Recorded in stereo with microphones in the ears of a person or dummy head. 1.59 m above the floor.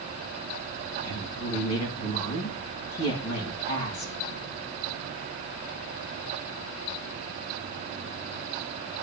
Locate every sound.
1.0 s a woman speaking: 85° left, 3.5 m